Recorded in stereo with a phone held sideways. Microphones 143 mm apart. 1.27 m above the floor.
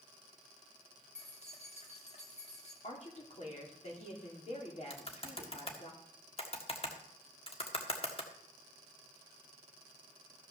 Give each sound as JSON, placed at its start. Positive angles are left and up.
{"t": 1.1, "sound": "keys jangling", "side_deg": 50, "distance_m": 1.7}
{"t": 2.8, "sound": "a woman speaking", "side_deg": 55, "distance_m": 3.5}
{"t": 4.9, "sound": "typing on a keyboard", "side_deg": 45, "distance_m": 1.6}